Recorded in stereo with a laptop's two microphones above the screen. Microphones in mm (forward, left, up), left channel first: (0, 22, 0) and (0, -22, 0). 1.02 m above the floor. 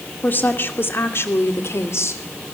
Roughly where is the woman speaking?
Left.